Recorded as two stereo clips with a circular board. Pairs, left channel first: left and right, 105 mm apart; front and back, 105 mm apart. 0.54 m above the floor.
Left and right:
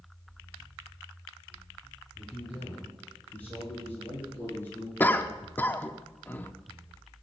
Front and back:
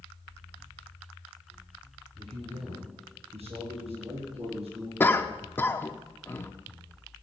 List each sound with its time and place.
2.2 s a man speaking: 170° left, 6.5 m; by 4.9 s 160° left, 5.5 m
5.0 s a cough: 45° left, 0.9 m